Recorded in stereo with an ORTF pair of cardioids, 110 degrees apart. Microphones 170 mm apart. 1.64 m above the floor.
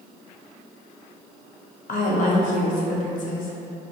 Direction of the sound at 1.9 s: 55° left.